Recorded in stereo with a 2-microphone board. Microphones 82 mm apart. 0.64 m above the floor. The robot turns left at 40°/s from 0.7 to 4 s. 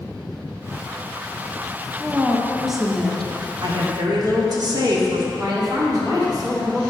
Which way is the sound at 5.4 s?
50° right (ahead or behind).